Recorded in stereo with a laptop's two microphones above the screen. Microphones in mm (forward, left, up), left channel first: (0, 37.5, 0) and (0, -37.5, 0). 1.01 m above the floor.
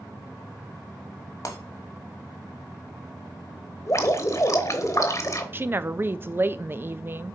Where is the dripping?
45° left (ahead or behind), 0.9 m.